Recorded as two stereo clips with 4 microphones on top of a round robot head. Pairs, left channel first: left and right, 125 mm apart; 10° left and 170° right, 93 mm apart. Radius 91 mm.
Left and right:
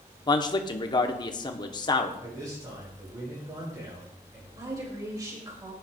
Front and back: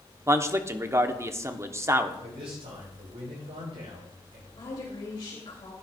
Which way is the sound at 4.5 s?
35° right.